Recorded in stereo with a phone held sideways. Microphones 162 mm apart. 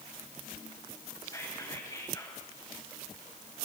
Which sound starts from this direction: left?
Whispering, at 1.2 s.